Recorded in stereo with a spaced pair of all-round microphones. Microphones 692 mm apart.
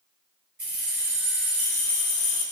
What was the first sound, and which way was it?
Keys jangling, 25° right (ahead or behind).